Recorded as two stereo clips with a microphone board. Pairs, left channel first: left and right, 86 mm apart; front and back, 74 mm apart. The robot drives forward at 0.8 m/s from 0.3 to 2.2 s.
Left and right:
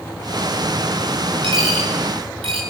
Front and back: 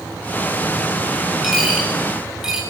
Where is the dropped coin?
95° right, 9.5 m.